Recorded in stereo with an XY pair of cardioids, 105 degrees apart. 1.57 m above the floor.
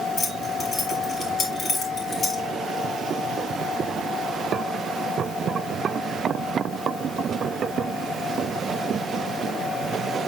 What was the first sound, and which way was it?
Keys jangling, 35° left.